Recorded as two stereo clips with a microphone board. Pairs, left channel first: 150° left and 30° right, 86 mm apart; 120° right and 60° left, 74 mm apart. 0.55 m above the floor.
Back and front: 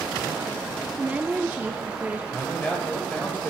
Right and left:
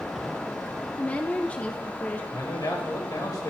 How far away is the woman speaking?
About 0.6 m.